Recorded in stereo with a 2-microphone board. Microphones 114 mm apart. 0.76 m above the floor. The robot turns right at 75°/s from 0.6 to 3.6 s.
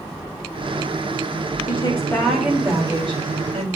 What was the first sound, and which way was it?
A woman speaking, 125° left.